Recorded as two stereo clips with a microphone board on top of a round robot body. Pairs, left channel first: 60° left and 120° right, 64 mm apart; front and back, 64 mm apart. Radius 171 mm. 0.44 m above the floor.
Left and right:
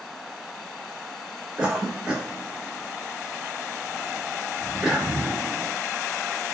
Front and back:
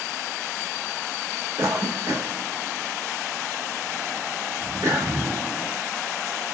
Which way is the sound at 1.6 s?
170° left.